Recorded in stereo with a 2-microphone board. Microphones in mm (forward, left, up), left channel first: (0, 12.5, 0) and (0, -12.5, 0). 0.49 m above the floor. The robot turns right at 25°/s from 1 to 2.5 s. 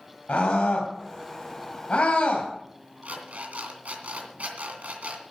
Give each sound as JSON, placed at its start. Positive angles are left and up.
{"t": 0.3, "sound": "a scream", "side_deg": 70, "distance_m": 2.5}
{"t": 3.0, "sound": "an alarm clock", "side_deg": -70, "distance_m": 2.5}